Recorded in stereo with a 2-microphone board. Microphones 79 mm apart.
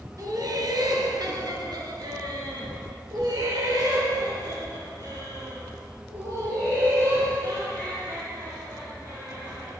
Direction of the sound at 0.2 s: 50° right (ahead or behind).